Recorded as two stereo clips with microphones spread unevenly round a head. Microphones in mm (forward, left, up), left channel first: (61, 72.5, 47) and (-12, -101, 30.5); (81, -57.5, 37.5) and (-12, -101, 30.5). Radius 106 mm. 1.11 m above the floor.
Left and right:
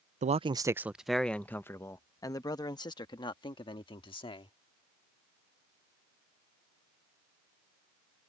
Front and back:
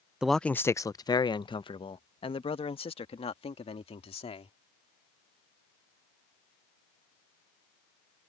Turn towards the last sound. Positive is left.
turn(degrees=5)